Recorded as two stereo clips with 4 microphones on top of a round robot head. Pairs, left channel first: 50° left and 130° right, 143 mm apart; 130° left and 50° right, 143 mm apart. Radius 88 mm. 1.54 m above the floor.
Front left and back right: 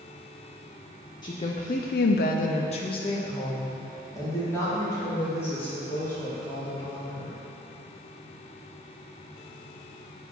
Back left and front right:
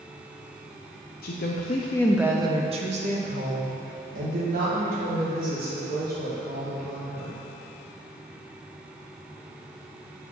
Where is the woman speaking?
110° left, 0.9 m; by 7.3 s 30° right, 5 m.